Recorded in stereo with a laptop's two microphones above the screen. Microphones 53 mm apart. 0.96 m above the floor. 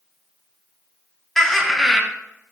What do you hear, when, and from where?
1.4 s laughter: 5° left (ahead or behind), 0.9 m